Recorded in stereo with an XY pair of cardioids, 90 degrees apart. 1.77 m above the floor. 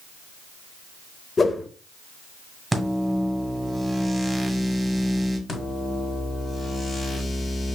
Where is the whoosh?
35° left, 0.6 m.